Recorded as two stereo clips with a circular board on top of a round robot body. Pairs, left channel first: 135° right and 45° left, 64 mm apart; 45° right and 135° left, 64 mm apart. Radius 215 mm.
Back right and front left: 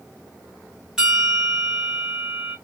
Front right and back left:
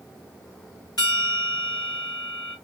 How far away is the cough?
I don't hear a cough.